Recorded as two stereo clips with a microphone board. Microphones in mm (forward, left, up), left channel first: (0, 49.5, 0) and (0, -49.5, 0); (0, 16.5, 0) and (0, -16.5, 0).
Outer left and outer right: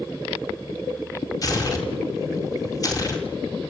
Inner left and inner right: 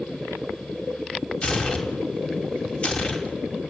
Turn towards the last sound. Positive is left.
turn(degrees=40)  # may be behind; listen again after turning